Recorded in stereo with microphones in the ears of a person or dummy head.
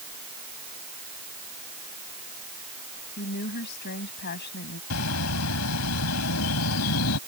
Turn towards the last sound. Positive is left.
turn(degrees=75)  # may be behind; listen again after turning